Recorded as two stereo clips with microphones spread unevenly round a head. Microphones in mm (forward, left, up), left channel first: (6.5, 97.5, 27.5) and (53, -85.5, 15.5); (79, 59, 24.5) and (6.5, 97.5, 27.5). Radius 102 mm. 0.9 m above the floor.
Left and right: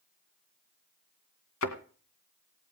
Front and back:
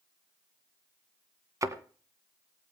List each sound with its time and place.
1.6 s a thud: 105° left, 2 m